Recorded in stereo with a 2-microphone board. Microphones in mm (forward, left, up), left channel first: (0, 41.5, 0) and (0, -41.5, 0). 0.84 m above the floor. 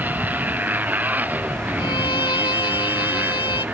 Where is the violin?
80° left.